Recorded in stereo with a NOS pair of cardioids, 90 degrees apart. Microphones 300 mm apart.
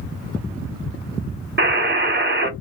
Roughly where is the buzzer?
Ahead right.